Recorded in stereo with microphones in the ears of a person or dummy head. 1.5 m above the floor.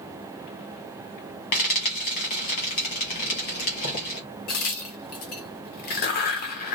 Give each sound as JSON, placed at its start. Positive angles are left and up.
{"t": 1.5, "sound": "frying", "side_deg": 40, "distance_m": 1.5}
{"t": 4.5, "sound": "a crack", "side_deg": 45, "distance_m": 0.8}